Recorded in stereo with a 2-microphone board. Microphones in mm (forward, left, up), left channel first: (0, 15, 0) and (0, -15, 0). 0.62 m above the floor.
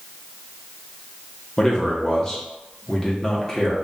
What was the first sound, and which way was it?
A man speaking, 20° left (ahead or behind).